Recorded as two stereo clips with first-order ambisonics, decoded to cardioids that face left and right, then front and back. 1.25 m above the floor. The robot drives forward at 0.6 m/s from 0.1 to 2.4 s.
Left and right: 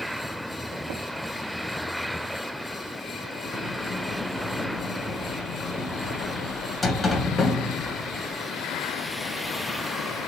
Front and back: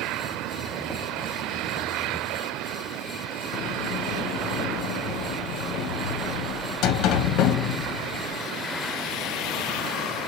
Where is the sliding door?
15° left, 0.6 m.